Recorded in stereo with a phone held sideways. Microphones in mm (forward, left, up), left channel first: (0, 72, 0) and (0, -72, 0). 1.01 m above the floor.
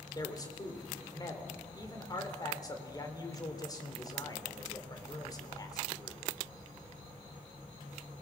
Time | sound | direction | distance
0.1 | a man speaking | 25° left (ahead or behind) | 3 m